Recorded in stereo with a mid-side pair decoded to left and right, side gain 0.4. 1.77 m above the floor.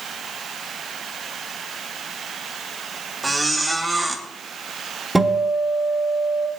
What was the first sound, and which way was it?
A squeak, 20° right.